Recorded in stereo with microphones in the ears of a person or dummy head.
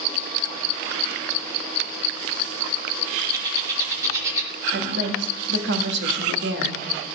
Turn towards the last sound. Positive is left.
turn(degrees=-75)  # may be behind; listen again after turning